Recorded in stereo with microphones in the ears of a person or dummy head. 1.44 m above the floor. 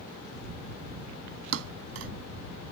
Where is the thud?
70° right (ahead or behind).